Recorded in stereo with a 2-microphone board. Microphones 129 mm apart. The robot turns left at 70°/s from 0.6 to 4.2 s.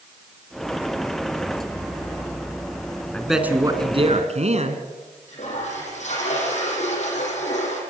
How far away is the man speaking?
About 3 m.